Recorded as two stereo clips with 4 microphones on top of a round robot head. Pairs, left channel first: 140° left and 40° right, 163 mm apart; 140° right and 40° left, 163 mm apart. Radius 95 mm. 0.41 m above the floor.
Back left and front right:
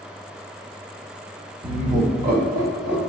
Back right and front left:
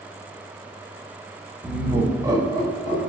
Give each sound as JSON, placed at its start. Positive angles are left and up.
{"t": 1.6, "sound": "laughter", "azimuth_deg": -50, "distance_m": 0.8}